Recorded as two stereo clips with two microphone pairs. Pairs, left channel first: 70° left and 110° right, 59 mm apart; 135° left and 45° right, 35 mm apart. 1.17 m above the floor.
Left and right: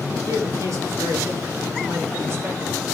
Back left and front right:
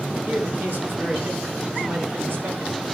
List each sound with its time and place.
0.2 s a man speaking: 85° right, 4.5 m; by 2.8 s 55° right, 5 m